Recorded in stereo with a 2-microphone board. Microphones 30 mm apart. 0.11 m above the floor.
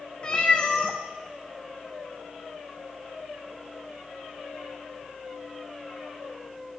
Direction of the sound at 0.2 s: 35° left (ahead or behind).